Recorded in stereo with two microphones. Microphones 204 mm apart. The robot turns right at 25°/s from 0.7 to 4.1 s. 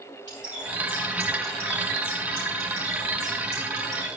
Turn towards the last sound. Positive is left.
turn(degrees=145)